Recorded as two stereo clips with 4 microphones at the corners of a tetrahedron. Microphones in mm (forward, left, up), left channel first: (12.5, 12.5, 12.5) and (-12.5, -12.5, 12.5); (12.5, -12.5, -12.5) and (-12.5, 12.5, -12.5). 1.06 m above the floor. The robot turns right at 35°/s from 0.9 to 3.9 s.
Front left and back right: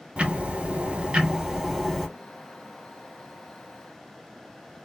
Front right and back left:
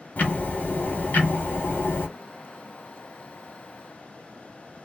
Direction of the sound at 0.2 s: 85° right.